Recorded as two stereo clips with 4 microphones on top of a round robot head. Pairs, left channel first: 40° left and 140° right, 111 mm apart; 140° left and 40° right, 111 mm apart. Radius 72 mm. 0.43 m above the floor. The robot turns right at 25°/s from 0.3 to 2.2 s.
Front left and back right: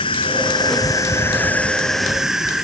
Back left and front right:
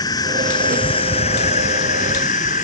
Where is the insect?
85° left; by 2.6 s 130° left.